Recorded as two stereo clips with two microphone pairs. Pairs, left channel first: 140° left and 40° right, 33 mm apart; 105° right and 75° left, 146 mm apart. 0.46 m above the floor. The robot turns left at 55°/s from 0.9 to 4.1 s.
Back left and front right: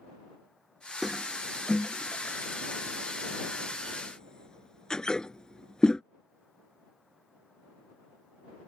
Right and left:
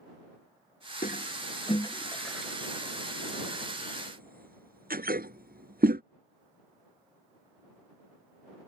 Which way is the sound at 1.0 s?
120° right.